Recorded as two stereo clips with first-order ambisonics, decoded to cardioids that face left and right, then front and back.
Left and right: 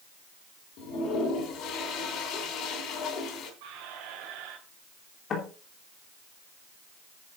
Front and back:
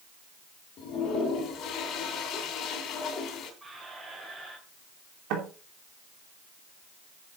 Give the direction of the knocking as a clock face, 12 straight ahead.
7 o'clock.